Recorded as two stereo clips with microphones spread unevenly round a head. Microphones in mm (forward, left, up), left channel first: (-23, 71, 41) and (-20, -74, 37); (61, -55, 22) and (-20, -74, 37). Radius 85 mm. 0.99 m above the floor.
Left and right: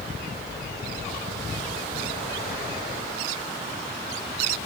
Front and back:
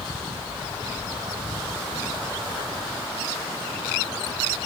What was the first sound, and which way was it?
Only background noise.